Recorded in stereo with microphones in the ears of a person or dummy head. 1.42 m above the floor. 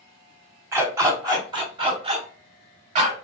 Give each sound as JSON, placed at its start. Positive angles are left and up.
{"t": 0.7, "sound": "a dog barking", "side_deg": -20, "distance_m": 1.6}